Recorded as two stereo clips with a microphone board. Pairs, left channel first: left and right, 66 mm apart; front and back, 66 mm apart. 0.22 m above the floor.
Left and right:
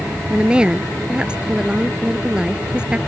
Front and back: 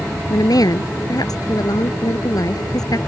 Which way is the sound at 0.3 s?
15° right.